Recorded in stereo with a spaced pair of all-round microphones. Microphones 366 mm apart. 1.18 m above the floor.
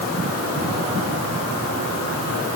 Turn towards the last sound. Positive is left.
No sound to turn to.